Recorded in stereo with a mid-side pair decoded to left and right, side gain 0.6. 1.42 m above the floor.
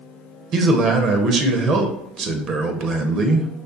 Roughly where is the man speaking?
Ahead right.